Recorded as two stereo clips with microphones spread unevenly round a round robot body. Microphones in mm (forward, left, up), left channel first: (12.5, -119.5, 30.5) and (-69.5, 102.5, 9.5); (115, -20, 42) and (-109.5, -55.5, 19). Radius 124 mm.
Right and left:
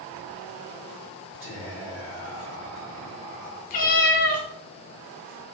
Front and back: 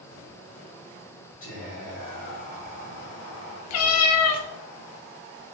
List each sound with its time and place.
1.4 s whispering: 45° left, 1.8 m
3.7 s a cat meowing: 10° right, 0.5 m